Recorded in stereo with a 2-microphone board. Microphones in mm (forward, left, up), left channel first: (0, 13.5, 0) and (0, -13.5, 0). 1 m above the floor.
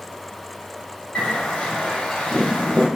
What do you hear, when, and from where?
1.1 s a bird: 50° left (ahead or behind), 1.0 m